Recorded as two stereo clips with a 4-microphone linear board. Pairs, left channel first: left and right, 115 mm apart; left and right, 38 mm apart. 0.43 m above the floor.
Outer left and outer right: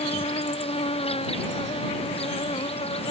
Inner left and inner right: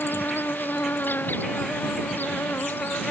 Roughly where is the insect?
Left.